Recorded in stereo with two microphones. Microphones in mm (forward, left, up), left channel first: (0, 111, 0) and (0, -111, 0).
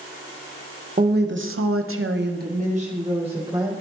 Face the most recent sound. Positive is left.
turn(degrees=-20)  # may be behind; listen again after turning